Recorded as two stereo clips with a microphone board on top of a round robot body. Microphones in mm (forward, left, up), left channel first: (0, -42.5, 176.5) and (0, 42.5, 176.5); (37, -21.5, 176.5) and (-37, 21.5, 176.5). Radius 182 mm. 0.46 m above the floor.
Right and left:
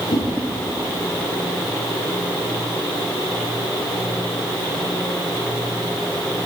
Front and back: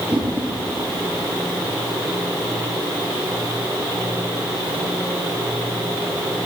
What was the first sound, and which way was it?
A whoosh, 130° right.